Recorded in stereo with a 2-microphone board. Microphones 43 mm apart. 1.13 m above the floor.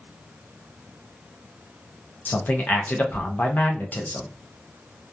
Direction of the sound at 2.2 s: 45° left (ahead or behind).